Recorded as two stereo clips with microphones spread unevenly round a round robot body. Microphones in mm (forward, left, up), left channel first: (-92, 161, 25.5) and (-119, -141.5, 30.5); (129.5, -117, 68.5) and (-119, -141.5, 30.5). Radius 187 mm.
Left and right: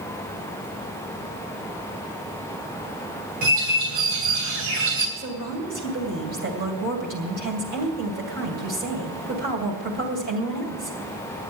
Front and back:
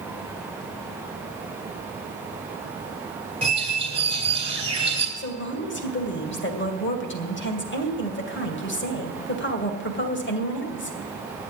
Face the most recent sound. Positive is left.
turn(degrees=-35)